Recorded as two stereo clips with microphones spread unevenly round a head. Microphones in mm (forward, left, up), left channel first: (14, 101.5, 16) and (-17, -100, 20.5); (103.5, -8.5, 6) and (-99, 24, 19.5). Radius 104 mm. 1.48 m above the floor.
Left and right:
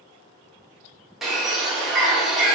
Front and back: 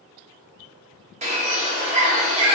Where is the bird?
175° left, 0.8 m.